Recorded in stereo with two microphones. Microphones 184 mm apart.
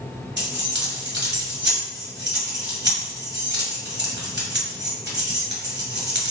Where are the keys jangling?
80° right, 1.8 m.